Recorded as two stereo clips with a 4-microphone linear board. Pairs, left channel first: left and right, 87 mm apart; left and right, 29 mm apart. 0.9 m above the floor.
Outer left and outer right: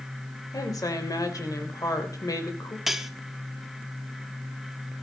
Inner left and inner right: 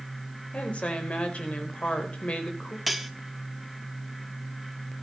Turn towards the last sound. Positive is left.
turn(degrees=0)  # may be behind; listen again after turning